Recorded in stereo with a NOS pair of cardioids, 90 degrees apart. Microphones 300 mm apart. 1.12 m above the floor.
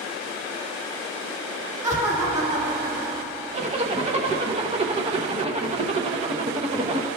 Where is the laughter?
10° right, 1.9 m.